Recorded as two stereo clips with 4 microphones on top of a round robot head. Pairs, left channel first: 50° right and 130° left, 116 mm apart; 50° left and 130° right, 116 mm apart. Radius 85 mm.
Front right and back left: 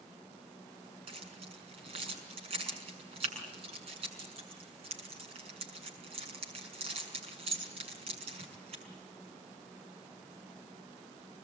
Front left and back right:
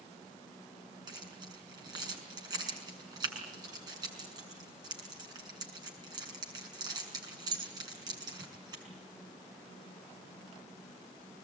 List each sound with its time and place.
1.1 s keys jangling: 170° left, 6 m